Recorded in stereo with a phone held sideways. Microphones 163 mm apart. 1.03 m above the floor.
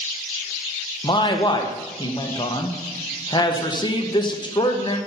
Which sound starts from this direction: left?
A man speaking, at 1.0 s.